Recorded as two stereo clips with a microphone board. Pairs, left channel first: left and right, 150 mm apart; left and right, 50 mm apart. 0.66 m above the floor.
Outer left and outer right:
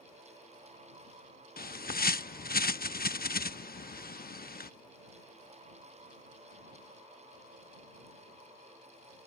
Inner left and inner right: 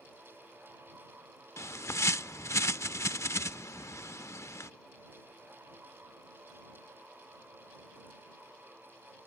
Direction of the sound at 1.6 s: 80° left.